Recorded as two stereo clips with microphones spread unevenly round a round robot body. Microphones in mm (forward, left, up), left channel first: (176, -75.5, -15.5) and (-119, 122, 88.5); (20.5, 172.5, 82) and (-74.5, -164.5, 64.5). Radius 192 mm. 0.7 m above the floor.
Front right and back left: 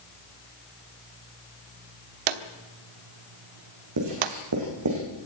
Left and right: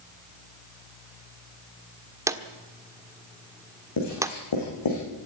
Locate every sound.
2.3 s a drawer: 175° left, 1.4 m
4.0 s writing: 105° left, 9 m